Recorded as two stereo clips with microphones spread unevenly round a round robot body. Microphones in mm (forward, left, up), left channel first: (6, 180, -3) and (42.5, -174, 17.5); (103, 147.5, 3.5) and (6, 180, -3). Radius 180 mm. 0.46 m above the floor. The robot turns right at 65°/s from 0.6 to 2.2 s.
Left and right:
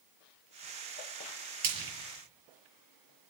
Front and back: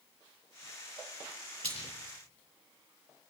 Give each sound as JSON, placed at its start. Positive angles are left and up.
{"t": 1.6, "sound": "frying", "azimuth_deg": -135, "distance_m": 6.5}